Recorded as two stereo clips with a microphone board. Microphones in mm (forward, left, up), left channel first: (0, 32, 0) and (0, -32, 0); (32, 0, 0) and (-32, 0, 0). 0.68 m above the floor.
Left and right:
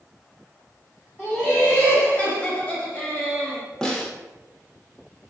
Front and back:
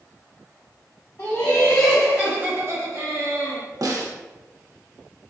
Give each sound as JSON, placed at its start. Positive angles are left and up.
{"t": 1.2, "sound": "laughter", "azimuth_deg": 40, "distance_m": 0.8}
{"t": 3.8, "sound": "a snare drum", "azimuth_deg": 170, "distance_m": 0.5}